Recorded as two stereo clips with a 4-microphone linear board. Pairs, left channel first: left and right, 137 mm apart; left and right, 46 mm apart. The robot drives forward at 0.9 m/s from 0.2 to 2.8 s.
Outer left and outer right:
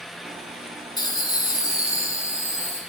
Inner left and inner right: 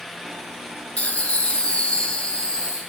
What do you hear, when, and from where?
1.0 s laughter: 30° left (ahead or behind), 1.2 m; by 2.8 s 15° left (ahead or behind), 2 m